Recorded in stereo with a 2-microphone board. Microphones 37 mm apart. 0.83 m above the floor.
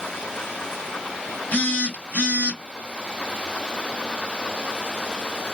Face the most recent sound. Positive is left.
turn(degrees=55)  # may be behind; listen again after turning